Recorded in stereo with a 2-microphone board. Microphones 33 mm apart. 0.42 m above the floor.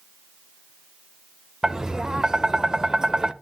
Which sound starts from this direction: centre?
Tapping, at 1.6 s.